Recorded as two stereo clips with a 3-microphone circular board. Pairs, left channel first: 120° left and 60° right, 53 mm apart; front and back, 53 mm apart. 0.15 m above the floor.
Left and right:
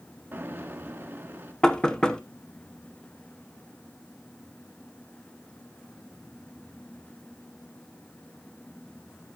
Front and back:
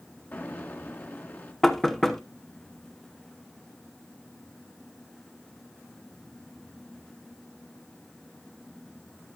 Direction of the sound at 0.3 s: 30° right.